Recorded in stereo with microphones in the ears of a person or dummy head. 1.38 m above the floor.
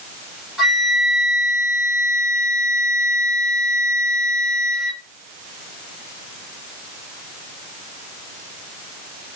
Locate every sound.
0.6 s a flute: centre (ahead or behind), 1.0 m